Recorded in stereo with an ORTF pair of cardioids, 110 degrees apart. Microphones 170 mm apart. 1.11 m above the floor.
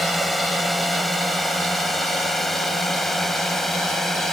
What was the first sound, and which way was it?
A drone, straight ahead.